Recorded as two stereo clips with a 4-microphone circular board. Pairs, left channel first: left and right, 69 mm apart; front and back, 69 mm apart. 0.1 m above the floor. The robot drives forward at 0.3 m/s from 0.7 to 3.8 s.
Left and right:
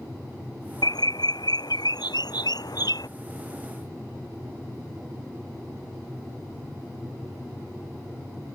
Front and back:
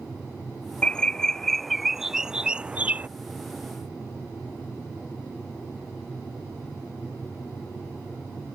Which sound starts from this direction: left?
A bird, at 0.8 s.